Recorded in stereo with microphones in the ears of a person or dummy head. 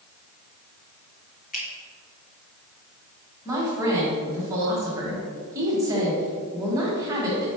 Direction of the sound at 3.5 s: 15° right (ahead or behind).